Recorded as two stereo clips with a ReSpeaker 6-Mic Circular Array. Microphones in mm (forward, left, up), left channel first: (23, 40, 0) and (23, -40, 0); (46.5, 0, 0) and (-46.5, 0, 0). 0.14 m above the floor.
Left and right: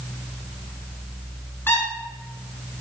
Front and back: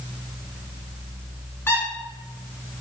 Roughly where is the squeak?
Ahead left.